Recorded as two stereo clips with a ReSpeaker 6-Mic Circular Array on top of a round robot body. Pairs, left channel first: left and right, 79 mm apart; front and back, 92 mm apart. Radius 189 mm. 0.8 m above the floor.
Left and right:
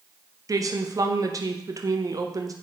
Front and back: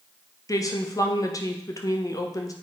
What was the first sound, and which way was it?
A woman speaking, 50° right.